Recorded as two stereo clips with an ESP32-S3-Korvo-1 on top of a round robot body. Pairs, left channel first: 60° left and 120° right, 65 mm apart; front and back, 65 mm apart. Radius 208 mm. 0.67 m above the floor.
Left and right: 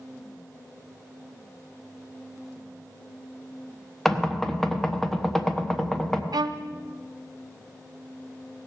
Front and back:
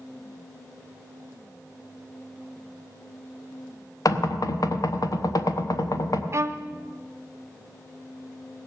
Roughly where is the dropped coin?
I don't hear a dropped coin.